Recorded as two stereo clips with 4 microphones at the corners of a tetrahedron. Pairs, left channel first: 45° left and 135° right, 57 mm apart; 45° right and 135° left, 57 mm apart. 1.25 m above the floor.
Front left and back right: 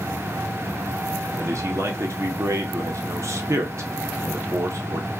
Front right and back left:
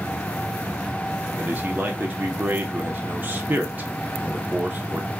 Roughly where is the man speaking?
Behind.